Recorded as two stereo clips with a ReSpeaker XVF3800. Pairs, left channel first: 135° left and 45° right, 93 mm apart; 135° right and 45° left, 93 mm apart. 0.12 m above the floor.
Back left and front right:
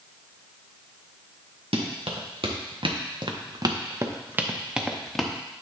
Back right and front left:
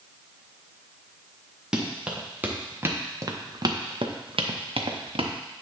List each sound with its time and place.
1.7 s running footsteps: 40° right, 2 m; by 5.3 s 50° left, 1.5 m